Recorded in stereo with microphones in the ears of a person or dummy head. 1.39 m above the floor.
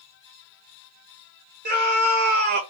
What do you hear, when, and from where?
1.6 s a scream: 50° right (ahead or behind), 1.6 m